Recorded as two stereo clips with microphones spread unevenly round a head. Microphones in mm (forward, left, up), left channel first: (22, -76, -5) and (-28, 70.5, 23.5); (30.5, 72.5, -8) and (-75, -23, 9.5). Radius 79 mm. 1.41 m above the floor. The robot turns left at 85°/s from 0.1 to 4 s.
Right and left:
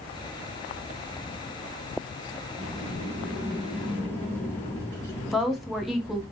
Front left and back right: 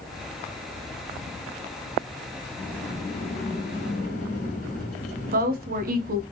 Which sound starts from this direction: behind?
A woman speaking, at 5.3 s.